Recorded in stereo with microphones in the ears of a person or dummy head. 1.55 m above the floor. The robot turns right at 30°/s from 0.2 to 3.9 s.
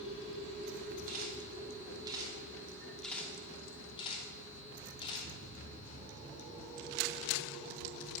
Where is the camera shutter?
55° right (ahead or behind), 3 m; by 5.3 s 30° left (ahead or behind), 3 m.